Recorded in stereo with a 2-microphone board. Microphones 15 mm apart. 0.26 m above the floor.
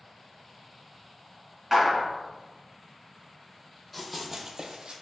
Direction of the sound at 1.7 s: 20° right (ahead or behind).